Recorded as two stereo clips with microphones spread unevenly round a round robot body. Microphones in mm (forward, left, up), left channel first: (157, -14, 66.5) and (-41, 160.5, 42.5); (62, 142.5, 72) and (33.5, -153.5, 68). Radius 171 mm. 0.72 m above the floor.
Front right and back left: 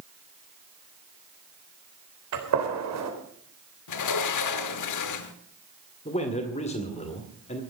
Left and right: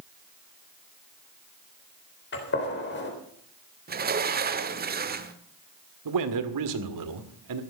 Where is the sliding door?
35° right, 1.4 m.